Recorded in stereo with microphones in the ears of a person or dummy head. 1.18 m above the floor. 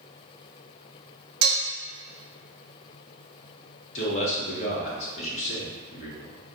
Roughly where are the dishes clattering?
Right.